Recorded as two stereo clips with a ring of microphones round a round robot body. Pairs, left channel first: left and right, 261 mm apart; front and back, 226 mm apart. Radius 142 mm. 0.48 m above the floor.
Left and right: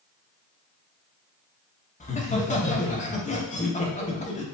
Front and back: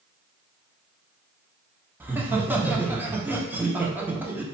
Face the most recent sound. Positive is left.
turn(degrees=105)